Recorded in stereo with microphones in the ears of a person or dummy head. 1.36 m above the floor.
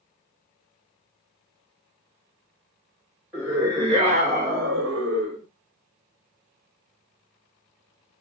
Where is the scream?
5° right (ahead or behind), 0.8 m; by 5.4 s 75° right (ahead or behind), 1.3 m.